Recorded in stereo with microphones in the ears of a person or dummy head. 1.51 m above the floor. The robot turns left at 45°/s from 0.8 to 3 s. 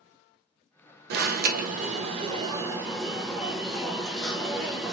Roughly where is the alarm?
Right.